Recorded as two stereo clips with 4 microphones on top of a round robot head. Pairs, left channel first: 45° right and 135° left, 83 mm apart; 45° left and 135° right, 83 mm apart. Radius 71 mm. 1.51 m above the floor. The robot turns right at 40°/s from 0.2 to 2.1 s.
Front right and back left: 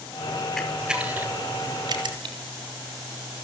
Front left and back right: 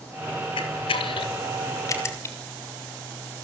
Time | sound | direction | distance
0.6 | a camera shutter | 40° left | 3.5 m